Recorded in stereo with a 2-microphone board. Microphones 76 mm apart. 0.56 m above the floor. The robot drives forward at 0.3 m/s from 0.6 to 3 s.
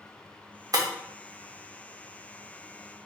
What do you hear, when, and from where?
0.7 s breaking glass: 55° right (ahead or behind), 0.7 m